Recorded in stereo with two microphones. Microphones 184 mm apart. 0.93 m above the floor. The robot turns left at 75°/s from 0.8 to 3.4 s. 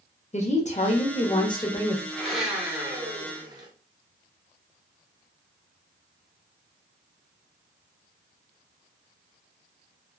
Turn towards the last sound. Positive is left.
turn(degrees=-25)  # may be behind; listen again after turning